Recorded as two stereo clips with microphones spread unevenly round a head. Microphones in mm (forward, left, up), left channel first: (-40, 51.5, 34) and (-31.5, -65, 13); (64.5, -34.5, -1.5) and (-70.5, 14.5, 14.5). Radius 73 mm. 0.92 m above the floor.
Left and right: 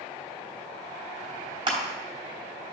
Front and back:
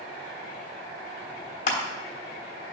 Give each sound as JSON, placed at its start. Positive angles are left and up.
{"t": 1.7, "sound": "crushing", "azimuth_deg": -40, "distance_m": 3.0}